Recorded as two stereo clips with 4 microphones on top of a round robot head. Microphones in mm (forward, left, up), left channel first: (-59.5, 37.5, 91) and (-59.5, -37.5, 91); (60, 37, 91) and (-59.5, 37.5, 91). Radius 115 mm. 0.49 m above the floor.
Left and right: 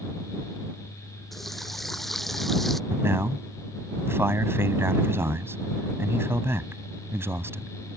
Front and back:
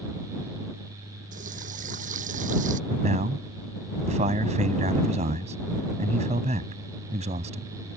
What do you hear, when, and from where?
1.3 s a running tap: 175° left
2.9 s a man speaking: 150° right